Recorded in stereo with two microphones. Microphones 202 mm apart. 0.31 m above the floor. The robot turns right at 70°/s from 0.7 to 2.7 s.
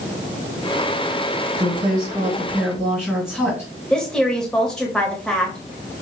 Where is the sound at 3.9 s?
5° left (ahead or behind), 1.2 m.